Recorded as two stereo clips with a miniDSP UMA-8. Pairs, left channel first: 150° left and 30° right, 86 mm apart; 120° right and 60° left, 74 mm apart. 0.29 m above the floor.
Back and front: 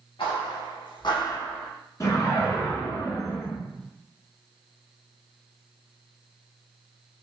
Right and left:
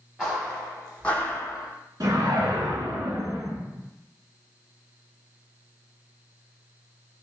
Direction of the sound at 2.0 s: 100° left.